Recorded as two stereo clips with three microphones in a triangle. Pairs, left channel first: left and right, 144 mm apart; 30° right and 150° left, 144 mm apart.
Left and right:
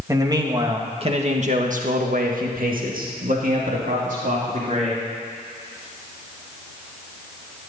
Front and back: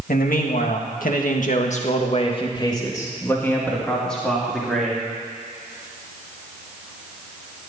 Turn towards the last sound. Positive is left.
turn(degrees=-120)